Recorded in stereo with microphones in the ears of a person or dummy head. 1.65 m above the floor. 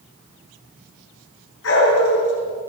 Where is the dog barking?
80° left, 8 m.